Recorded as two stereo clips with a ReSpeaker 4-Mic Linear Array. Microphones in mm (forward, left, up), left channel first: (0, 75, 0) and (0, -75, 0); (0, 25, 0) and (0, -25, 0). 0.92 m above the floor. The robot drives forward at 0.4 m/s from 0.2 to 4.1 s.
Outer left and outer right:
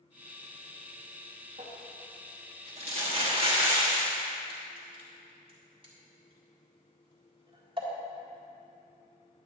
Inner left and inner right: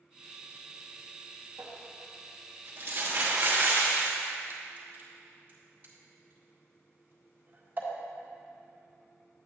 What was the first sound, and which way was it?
Crumpling, 50° right (ahead or behind).